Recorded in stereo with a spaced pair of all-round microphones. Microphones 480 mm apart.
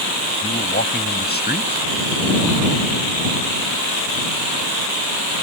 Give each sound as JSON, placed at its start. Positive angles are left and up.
{"t": 0.4, "sound": "a man speaking", "side_deg": 20}